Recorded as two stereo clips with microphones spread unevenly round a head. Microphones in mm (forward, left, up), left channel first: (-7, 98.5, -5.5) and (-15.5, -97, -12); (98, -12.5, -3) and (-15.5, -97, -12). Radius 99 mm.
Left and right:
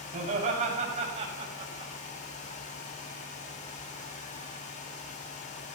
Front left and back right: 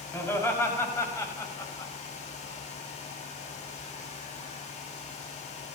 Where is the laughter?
35° right, 6 m; by 1.9 s 25° right, 5 m.